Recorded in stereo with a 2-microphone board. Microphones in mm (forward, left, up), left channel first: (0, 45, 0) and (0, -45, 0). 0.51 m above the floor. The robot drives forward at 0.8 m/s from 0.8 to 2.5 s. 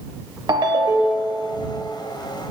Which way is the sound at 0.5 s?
50° right (ahead or behind).